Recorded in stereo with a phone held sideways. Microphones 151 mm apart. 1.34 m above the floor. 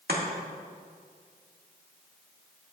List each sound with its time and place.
0.1 s chopping: 80° right, 1.8 m